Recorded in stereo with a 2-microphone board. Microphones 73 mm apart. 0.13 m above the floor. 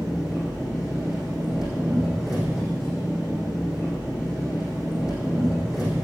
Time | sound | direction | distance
0.0 | an engine running | 5° right (ahead or behind) | 4.5 m